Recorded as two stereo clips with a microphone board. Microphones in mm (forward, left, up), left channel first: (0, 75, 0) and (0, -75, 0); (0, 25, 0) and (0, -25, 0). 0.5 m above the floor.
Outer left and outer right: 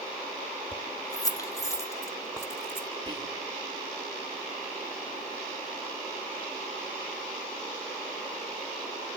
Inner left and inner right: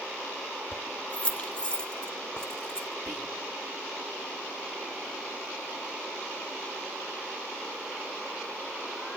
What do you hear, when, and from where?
0.7 s keys jangling: 30° left (ahead or behind), 1.5 m; by 2.9 s 15° left (ahead or behind), 3.5 m
3.1 s whispering: 30° right (ahead or behind), 8.5 m